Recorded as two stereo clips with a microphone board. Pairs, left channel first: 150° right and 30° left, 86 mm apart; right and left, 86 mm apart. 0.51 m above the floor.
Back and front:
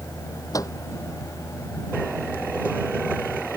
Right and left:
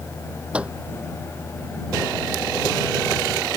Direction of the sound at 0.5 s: 165° left.